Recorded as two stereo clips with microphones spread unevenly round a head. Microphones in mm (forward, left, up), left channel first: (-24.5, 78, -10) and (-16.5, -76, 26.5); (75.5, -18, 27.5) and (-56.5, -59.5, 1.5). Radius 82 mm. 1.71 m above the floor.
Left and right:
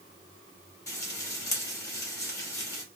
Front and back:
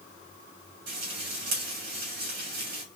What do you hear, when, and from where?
0.9 s frying: 165° left, 3 m